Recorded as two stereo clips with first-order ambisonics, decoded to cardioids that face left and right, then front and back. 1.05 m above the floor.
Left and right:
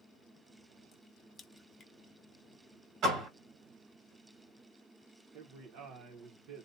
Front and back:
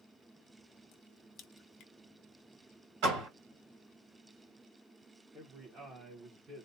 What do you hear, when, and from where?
0.9 s a crack: 30° left, 0.6 m
3.0 s a door slam: 140° right, 1.9 m
5.3 s a man speaking: 120° right, 0.9 m